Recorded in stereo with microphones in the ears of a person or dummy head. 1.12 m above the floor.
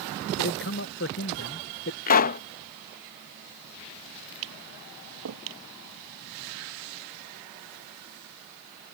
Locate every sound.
0.4 s a man speaking: 55° left (ahead or behind)
2.1 s a pop: 45° left (ahead or behind)
4.4 s tapping: 85° right